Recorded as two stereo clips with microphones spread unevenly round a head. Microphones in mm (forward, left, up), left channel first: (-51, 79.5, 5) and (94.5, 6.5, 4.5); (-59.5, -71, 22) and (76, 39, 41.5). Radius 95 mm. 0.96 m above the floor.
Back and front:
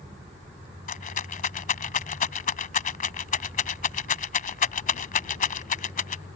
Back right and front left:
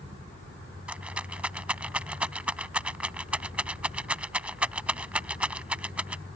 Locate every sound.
0.9 s a rattle: 120° left